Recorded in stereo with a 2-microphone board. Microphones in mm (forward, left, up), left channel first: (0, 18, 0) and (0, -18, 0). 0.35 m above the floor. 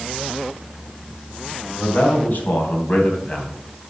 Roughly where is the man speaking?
Left.